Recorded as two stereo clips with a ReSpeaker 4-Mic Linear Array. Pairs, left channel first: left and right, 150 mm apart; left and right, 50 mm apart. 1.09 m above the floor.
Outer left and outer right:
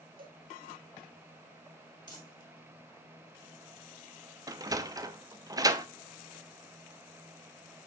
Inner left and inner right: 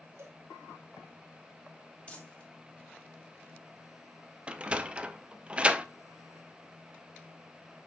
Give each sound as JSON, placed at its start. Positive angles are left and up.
{"t": 0.2, "sound": "a cowbell", "side_deg": -75, "distance_m": 1.8}
{"t": 2.1, "sound": "crumpling", "side_deg": 25, "distance_m": 2.5}
{"t": 4.5, "sound": "a sliding door", "side_deg": -25, "distance_m": 0.6}